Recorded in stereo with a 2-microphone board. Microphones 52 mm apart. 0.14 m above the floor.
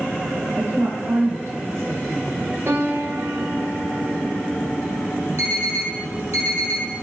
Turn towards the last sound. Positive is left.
turn(degrees=-65)  # may be behind; listen again after turning